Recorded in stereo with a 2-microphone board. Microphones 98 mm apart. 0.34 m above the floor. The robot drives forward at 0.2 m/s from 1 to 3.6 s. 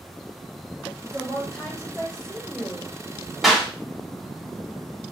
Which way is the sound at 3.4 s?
Centre (ahead or behind).